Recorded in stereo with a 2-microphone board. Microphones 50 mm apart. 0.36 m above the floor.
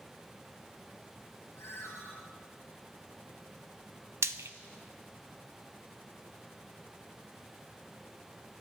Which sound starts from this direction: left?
A ringtone, at 1.6 s.